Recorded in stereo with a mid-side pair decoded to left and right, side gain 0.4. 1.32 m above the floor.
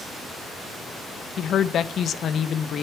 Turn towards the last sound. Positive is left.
turn(degrees=65)